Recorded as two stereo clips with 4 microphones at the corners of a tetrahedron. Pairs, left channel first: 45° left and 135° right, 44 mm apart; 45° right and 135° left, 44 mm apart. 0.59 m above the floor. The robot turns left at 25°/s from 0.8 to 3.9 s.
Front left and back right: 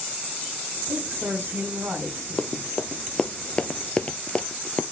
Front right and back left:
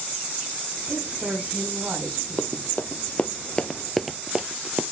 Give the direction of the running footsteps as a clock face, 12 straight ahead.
12 o'clock.